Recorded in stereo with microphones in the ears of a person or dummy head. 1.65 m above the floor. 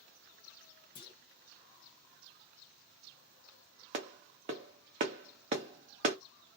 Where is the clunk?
25° left (ahead or behind), 0.9 m.